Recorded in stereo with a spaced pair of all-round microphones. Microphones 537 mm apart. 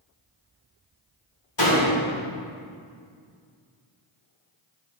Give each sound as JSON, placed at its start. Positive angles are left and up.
{"t": 1.6, "sound": "a door slam", "side_deg": 55, "distance_m": 2.5}